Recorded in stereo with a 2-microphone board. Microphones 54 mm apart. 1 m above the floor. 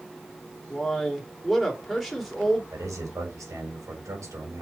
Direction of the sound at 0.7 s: Centre (ahead or behind).